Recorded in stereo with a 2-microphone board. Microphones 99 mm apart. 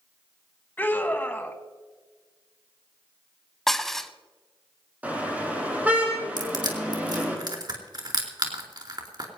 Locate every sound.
0.8 s a scream: 20° left (ahead or behind), 1.5 m
3.7 s dishes clattering: 5° left (ahead or behind), 0.7 m
5.0 s a car horn: 15° right (ahead or behind), 5 m
6.4 s crushing: 45° right (ahead or behind), 3 m